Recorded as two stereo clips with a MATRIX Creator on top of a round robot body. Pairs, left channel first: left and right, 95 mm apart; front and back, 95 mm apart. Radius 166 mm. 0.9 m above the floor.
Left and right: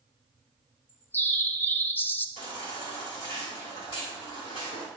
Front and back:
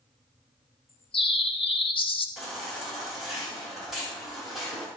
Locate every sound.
0.9 s a bird: 20° left, 0.8 m
2.4 s a baby crying: 90° left, 4.5 m